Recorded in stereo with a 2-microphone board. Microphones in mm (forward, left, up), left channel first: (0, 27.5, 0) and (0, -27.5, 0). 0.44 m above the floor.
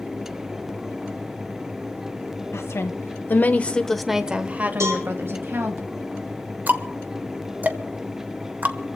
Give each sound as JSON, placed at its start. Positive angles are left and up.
{"t": 2.5, "sound": "a woman speaking", "side_deg": 65, "distance_m": 1.9}
{"t": 4.8, "sound": "a cowbell", "side_deg": -80, "distance_m": 4.0}
{"t": 6.7, "sound": "ticking", "side_deg": -35, "distance_m": 1.2}